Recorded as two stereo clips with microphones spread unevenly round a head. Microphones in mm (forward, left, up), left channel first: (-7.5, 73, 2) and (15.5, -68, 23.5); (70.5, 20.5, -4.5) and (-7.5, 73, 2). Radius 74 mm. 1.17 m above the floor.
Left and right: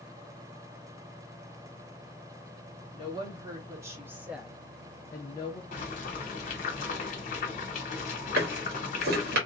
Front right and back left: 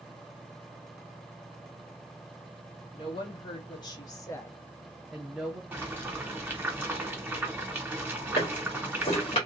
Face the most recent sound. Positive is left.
turn(degrees=-80)